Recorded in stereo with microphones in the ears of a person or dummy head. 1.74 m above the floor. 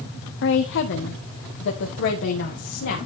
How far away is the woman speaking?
About 1.0 m.